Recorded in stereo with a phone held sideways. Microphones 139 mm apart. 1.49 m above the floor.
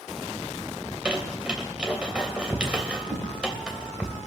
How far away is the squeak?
About 3 m.